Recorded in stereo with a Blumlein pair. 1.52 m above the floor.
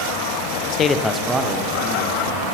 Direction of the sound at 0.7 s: 40° left.